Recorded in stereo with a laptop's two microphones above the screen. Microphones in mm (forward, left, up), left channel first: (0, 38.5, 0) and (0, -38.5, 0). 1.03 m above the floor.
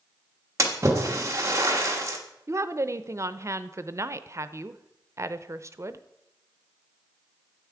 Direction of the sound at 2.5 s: 40° right (ahead or behind).